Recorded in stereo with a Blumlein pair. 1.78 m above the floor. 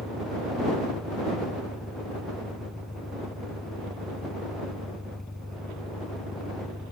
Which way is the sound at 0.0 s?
5° left.